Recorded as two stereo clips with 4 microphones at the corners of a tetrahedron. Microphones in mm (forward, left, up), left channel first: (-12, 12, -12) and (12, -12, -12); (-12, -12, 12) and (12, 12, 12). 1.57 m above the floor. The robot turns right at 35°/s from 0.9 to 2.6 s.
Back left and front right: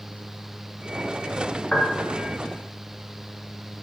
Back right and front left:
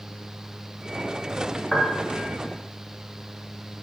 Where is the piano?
130° left, 0.7 m; by 2.3 s 150° left, 0.7 m.